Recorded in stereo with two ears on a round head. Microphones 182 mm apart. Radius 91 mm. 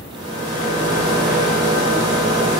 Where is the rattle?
20° right (ahead or behind), 0.7 m.